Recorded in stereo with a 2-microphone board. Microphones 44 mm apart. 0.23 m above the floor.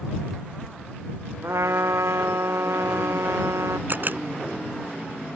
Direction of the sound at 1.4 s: 85° right.